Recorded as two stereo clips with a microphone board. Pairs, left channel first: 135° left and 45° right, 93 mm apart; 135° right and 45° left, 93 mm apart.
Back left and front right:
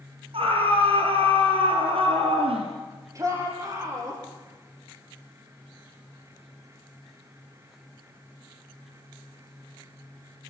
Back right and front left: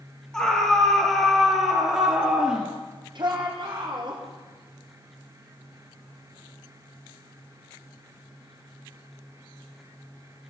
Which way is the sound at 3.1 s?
10° left.